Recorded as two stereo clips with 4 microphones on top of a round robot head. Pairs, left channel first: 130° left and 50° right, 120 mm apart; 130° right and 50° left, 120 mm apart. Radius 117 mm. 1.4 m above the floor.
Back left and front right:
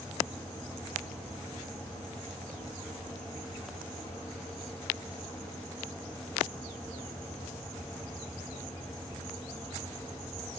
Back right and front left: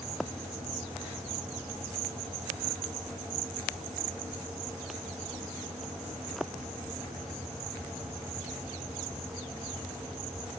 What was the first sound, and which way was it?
Only background noise.